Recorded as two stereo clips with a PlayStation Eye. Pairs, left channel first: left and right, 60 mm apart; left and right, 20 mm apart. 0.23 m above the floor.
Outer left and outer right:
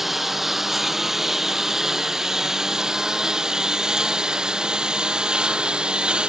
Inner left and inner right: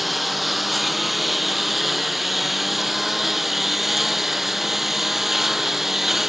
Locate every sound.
0.0 s a lawn mower: 5° right (ahead or behind); by 6.3 s 15° right (ahead or behind)